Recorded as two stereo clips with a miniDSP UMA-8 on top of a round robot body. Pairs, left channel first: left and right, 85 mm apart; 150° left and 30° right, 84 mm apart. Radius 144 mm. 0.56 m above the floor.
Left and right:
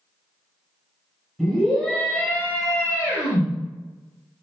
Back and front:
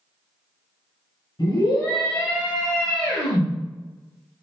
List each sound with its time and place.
1.4 s a scream: straight behind, 1.9 m; by 3.5 s 135° left, 1.4 m